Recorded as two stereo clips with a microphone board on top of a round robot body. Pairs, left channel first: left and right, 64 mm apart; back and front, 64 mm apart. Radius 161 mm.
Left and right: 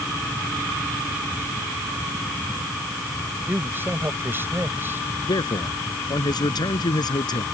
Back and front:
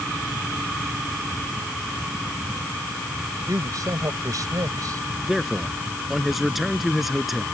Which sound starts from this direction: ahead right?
A man speaking, at 3.5 s.